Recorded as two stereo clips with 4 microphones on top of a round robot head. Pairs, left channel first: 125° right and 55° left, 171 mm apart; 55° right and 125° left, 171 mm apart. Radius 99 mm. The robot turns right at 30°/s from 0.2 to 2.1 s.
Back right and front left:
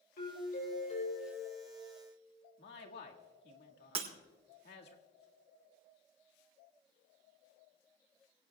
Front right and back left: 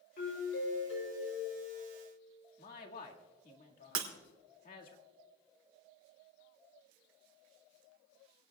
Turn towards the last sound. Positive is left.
turn(degrees=115)